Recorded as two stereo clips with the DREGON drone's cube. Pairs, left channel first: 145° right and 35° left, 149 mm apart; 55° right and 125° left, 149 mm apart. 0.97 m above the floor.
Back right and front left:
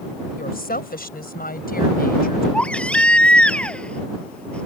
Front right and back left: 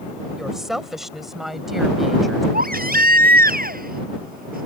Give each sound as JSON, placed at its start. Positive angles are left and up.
{"t": 0.4, "sound": "a woman speaking", "azimuth_deg": -150}
{"t": 2.5, "sound": "a baby crying", "azimuth_deg": 130}